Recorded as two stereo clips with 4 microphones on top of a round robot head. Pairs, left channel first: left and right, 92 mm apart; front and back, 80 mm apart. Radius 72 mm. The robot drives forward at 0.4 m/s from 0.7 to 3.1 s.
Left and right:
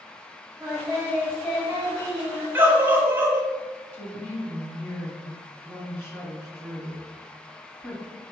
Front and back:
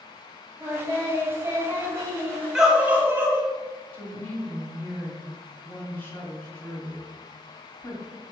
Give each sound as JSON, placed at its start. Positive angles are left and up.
{"t": 0.6, "sound": "singing", "azimuth_deg": 175, "distance_m": 1.4}
{"t": 2.5, "sound": "a scream", "azimuth_deg": -110, "distance_m": 0.7}
{"t": 3.9, "sound": "a woman speaking", "azimuth_deg": 45, "distance_m": 1.5}